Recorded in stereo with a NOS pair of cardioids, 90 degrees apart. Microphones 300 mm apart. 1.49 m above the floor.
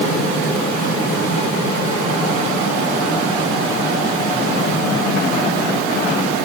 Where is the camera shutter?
I don't hear a camera shutter.